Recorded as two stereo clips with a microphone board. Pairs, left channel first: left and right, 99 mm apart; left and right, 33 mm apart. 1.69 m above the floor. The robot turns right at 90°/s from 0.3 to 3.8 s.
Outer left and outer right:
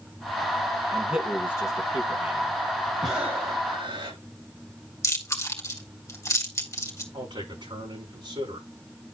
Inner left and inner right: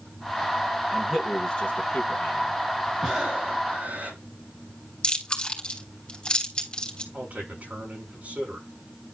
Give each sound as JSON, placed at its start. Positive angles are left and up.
{"t": 0.9, "sound": "a man speaking", "side_deg": -30, "distance_m": 2.0}
{"t": 3.0, "sound": "breathing", "azimuth_deg": 175, "distance_m": 5.0}
{"t": 5.0, "sound": "chewing", "side_deg": 30, "distance_m": 3.5}
{"t": 7.1, "sound": "a man speaking", "side_deg": -60, "distance_m": 5.5}